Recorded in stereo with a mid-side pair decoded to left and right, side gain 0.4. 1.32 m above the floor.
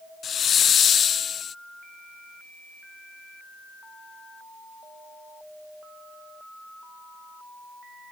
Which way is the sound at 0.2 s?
55° left.